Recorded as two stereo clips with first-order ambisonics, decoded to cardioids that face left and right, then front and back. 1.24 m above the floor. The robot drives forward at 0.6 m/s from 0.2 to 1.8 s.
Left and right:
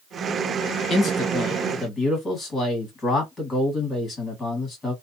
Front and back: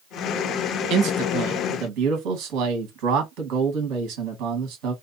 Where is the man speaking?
155° left, 1.2 m; by 4.9 s 160° left, 1.7 m.